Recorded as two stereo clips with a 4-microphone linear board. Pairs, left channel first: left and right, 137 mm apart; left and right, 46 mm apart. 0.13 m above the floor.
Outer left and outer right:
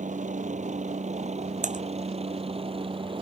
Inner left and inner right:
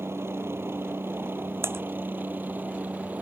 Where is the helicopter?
65° right (ahead or behind); by 3.2 s 40° right (ahead or behind).